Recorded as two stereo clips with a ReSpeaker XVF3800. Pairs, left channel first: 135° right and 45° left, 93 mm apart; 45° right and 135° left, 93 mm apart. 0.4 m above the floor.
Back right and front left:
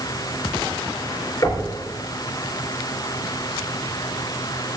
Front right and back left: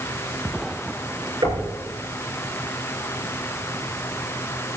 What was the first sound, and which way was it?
Knocking, 175° left.